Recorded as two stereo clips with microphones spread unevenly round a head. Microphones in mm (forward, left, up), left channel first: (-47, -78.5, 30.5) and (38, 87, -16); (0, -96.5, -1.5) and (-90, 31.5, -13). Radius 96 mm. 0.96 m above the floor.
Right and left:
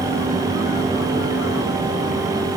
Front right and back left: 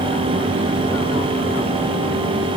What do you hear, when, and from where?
Only background noise.